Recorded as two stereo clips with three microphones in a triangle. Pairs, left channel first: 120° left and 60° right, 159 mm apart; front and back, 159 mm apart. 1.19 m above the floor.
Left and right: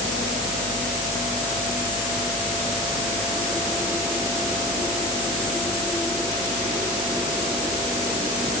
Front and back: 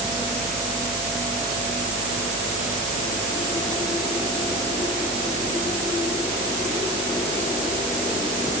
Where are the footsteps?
No footsteps in this recording.